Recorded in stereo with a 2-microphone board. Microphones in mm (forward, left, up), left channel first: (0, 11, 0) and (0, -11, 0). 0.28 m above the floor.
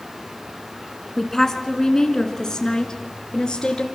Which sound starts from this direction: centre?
A woman speaking, at 1.2 s.